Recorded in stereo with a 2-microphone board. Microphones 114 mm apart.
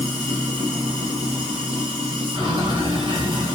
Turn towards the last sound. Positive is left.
turn(degrees=-50)  # may be behind; listen again after turning